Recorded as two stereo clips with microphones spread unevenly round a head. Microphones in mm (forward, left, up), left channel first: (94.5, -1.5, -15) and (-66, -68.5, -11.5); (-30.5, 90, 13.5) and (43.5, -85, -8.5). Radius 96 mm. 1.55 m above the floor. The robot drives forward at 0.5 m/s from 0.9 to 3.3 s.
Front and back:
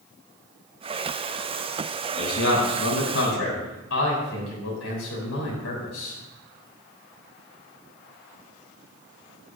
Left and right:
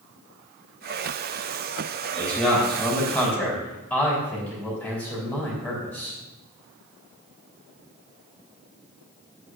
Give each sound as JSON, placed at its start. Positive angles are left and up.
{"t": 2.1, "sound": "a man speaking", "azimuth_deg": 25, "distance_m": 4.0}